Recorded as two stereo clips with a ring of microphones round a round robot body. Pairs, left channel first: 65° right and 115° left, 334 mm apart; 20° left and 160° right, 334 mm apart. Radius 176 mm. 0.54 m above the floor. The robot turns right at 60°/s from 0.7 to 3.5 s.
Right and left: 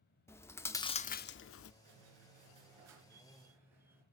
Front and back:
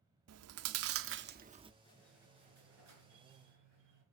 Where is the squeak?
95° left, 3.5 m; by 4.0 s 165° right, 3.5 m.